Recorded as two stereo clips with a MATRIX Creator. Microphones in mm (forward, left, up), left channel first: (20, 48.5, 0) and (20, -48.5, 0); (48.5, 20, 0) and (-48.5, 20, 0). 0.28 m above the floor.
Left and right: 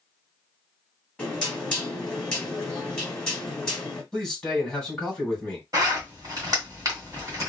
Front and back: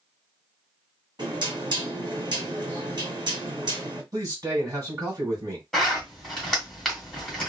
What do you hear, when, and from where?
1.2 s knocking: 170° left, 1.6 m
4.1 s a man speaking: 170° left, 2.0 m
5.7 s a zipper: 85° right, 1.8 m